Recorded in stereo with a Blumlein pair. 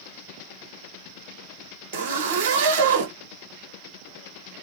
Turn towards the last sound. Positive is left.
turn(degrees=-60)